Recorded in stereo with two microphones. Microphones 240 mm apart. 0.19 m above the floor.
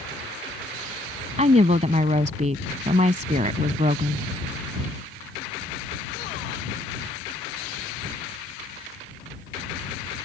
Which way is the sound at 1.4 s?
30° right (ahead or behind).